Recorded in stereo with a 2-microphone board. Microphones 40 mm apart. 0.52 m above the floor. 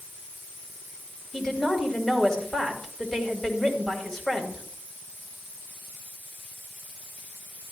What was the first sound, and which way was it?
A woman speaking, 10° left (ahead or behind).